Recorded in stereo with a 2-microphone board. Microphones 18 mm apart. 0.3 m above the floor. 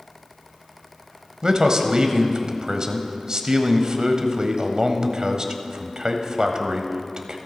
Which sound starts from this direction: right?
A man speaking, at 1.4 s.